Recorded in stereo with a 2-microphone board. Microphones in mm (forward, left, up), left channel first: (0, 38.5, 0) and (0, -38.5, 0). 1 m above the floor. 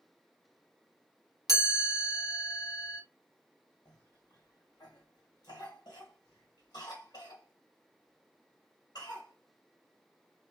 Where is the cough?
65° left (ahead or behind), 1.3 m.